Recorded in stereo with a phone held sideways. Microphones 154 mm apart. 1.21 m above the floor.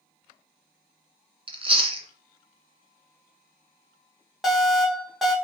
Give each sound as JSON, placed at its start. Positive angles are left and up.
{"t": 1.5, "sound": "chewing", "side_deg": -35, "distance_m": 0.6}
{"t": 4.4, "sound": "an alarm", "side_deg": 0, "distance_m": 1.2}